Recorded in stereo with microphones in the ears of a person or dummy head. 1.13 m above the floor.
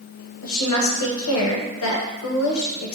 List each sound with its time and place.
0.4 s a woman speaking: 85° left, 0.7 m